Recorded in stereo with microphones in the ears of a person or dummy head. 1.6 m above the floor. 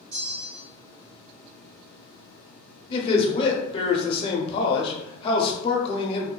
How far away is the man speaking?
About 0.7 m.